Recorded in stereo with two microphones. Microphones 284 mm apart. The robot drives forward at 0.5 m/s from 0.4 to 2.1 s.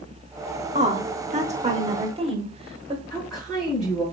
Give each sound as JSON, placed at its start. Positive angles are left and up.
{"t": 0.8, "sound": "a woman speaking", "side_deg": -25, "distance_m": 0.9}
{"t": 3.1, "sound": "a woman speaking", "side_deg": 0, "distance_m": 3.0}